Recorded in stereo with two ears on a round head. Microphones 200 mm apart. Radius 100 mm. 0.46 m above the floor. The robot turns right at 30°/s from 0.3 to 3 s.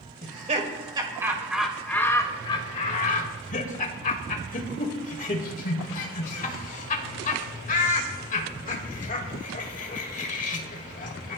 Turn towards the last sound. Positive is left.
turn(degrees=35)  # may be behind; listen again after turning